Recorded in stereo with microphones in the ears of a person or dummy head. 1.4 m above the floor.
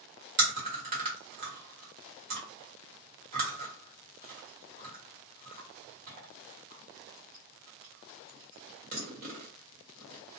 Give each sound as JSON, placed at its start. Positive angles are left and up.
{"t": 0.4, "sound": "chewing", "side_deg": -45, "distance_m": 1.2}